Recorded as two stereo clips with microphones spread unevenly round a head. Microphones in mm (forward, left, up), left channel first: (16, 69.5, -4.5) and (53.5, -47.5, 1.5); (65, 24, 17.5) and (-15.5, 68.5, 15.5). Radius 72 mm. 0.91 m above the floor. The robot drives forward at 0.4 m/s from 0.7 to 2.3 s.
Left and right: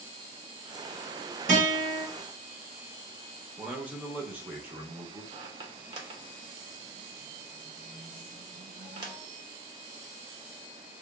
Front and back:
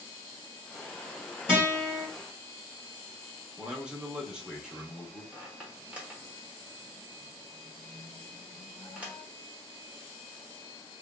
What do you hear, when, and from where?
1.5 s a guitar: 95° right, 1.5 m; by 2.0 s 105° right, 1.6 m
3.6 s a man speaking: 145° right, 0.5 m
5.3 s a squeak: 130° right, 0.6 m